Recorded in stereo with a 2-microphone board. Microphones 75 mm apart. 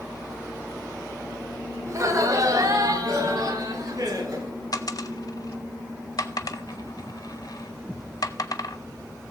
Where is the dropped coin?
60° left (ahead or behind), 0.7 m.